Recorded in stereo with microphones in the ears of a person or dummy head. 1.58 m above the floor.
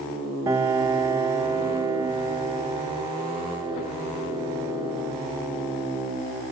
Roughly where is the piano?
Centre.